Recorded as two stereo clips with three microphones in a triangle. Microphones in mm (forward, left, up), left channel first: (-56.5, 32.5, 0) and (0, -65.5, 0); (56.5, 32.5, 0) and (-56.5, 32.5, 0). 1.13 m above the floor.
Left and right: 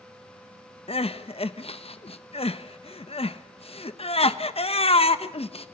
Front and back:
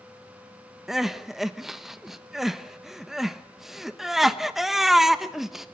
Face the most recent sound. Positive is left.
turn(degrees=95)